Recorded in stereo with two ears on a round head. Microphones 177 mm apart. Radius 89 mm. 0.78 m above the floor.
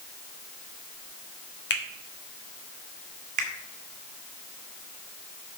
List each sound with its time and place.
1.7 s a finger snap: 55° left (ahead or behind), 1.5 m
3.4 s a finger snap: 40° right (ahead or behind), 1.9 m